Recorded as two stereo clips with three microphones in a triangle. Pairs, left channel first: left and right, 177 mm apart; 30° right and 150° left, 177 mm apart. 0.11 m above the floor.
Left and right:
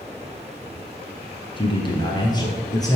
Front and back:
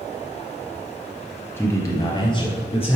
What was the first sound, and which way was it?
A man speaking, 40° left.